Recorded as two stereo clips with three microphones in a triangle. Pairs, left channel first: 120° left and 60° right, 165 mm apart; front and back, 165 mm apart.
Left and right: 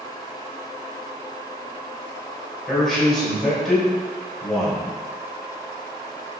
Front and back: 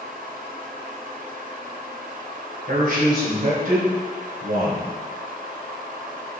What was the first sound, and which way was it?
A man speaking, 150° right.